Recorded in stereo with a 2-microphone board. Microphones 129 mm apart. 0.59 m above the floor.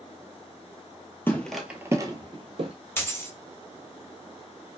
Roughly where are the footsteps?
Centre.